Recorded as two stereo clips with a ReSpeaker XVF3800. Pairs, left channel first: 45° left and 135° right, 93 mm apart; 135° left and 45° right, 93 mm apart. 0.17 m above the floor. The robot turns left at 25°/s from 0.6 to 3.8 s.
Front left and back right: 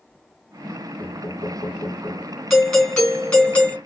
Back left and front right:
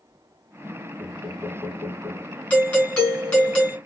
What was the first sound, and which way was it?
Knocking, 20° left.